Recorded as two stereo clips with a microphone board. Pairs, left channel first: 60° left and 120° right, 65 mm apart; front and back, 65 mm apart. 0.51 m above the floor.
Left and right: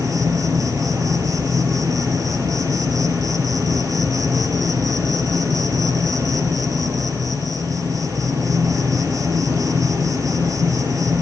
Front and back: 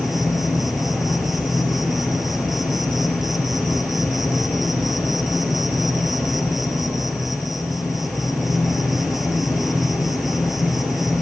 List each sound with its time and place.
0.0 s an insect: 95° right, 5 m